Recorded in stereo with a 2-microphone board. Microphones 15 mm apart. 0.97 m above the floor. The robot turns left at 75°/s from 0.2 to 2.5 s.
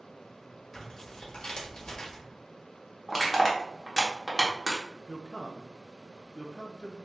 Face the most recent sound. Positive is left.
turn(degrees=65)  # may be behind; listen again after turning